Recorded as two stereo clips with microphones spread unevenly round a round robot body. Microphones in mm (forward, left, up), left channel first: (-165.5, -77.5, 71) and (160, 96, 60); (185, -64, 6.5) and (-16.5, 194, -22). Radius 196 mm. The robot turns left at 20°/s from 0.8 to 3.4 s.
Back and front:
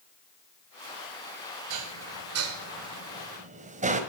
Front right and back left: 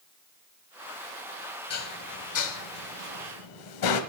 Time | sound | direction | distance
1.7 | dishes clattering | 10° right | 1.5 m